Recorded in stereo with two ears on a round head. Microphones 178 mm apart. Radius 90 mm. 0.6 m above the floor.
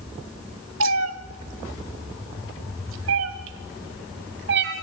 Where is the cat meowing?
70° right (ahead or behind), 1.3 m; by 4.7 s 60° right (ahead or behind), 2.5 m.